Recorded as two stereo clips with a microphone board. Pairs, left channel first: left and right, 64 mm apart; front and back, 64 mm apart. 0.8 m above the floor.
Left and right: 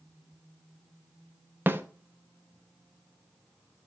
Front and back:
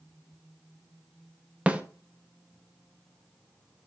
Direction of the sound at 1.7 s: 120° right.